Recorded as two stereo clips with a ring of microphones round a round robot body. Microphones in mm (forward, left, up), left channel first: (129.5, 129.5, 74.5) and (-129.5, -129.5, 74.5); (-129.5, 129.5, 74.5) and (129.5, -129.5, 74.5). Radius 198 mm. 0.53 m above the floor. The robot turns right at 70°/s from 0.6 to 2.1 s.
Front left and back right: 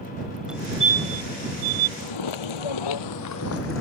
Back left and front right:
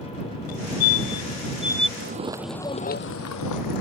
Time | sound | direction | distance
0.5 | a fire alarm | 135° left | ?
2.0 | footsteps | 5° left | ?